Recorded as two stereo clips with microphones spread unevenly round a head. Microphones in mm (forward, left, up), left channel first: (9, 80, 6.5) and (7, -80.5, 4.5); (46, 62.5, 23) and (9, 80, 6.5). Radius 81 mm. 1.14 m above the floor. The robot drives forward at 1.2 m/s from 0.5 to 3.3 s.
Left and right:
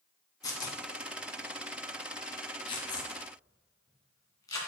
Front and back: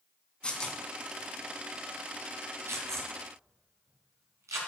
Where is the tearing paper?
25° left, 2 m; by 4.6 s 155° left, 2 m.